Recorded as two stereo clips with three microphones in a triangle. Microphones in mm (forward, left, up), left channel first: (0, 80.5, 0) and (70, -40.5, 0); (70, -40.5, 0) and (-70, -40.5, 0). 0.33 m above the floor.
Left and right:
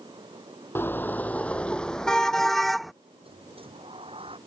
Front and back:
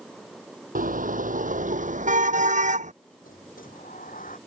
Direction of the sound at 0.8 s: 165° right.